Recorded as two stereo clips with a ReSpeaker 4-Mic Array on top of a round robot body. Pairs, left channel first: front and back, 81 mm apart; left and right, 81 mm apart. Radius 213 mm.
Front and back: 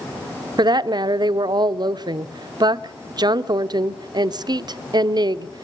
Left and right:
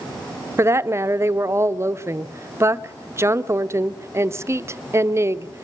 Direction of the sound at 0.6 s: 150° right.